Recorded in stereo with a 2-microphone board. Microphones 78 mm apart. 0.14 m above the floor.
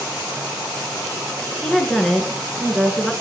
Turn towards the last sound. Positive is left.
turn(degrees=5)  # may be behind; listen again after turning